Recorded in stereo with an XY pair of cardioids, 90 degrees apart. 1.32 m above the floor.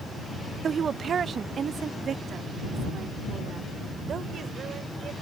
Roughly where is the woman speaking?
Ahead right.